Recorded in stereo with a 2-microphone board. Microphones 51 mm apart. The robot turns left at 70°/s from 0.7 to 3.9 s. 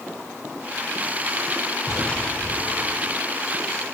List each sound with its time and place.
1.9 s an explosion: 175° left; by 3.2 s 80° left